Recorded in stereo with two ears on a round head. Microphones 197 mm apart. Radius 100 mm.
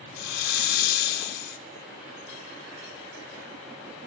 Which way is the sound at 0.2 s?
45° left (ahead or behind).